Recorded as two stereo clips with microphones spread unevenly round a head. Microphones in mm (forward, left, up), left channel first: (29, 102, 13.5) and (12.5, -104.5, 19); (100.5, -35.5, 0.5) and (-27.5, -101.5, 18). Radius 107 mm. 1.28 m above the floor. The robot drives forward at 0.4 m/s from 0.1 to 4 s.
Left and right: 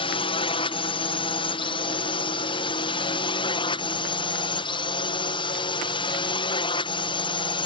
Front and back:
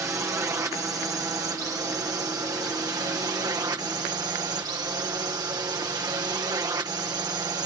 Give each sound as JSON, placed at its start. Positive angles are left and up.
{"t": 0.0, "sound": "a drone", "azimuth_deg": 135}